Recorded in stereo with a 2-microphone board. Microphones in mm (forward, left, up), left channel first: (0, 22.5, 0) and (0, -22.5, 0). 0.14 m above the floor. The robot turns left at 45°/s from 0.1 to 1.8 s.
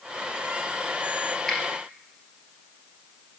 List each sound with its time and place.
1.5 s a finger snap: 10° left (ahead or behind), 2.0 m; by 1.6 s 15° left (ahead or behind), 2.0 m